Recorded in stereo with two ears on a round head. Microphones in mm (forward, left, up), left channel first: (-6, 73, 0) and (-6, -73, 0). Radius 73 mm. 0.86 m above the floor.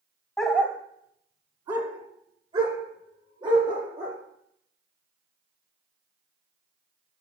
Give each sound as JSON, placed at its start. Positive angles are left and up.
{"t": 0.4, "sound": "a dog barking", "side_deg": 0, "distance_m": 0.8}